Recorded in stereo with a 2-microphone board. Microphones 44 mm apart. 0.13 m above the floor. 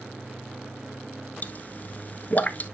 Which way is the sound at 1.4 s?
40° left (ahead or behind).